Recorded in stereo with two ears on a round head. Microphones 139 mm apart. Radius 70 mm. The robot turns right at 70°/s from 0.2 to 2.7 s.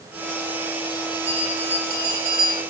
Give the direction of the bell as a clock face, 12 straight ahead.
6 o'clock.